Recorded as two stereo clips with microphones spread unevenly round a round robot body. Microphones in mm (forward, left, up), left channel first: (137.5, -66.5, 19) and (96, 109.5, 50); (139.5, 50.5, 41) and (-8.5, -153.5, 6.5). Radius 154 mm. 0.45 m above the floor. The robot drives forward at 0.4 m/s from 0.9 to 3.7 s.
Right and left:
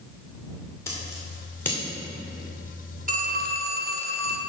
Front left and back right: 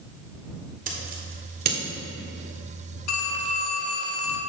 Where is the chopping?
I don't hear chopping.